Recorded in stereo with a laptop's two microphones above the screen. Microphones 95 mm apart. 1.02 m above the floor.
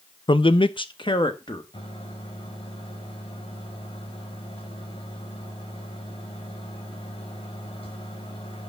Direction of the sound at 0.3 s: 55° left (ahead or behind).